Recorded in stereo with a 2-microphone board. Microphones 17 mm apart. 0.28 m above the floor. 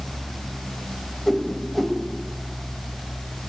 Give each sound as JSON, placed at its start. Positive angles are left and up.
{"t": 1.3, "sound": "a whoosh", "side_deg": 5, "distance_m": 0.7}